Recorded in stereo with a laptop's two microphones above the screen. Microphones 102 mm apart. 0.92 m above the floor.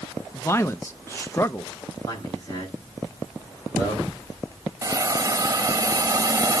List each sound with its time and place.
0.3 s a man speaking: 25° left (ahead or behind), 0.5 m
2.1 s a man speaking: 35° left (ahead or behind), 7 m
4.8 s a hiss: 30° right (ahead or behind), 0.9 m